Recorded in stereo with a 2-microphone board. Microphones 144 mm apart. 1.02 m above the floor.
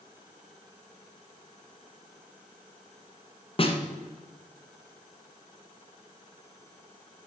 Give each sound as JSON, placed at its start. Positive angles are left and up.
{"t": 3.6, "sound": "a snare drum", "side_deg": 40, "distance_m": 1.7}